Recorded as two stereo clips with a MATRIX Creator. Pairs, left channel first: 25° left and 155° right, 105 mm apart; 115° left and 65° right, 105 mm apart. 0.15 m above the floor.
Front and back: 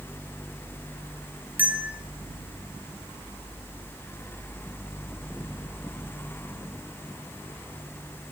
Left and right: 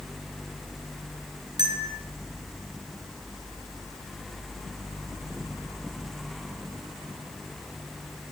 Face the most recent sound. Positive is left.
turn(degrees=-90)